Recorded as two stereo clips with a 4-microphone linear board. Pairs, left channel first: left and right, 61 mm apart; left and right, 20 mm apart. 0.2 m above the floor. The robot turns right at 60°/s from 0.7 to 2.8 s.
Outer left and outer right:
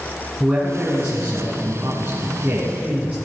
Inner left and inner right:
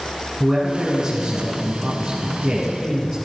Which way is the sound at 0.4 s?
160° right.